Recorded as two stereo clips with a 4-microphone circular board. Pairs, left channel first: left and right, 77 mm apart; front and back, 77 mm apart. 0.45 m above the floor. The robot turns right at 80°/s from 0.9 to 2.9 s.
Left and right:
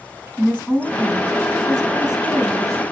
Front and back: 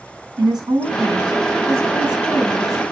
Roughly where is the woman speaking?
Behind.